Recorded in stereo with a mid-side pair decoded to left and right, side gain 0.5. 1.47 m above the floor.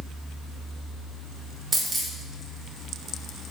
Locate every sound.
1.7 s a dropped coin: 30° right, 2.5 m